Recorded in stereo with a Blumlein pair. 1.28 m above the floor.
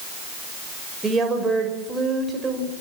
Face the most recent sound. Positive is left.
turn(degrees=-10)